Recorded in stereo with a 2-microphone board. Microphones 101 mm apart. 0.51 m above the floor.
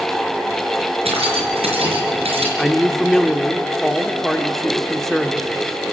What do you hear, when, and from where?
1.1 s keys jangling: 80° right, 5 m
2.6 s a man speaking: 5° left (ahead or behind), 1.1 m